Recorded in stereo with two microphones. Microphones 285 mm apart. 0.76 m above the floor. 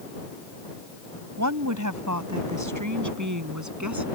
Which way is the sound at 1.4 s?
75° right (ahead or behind).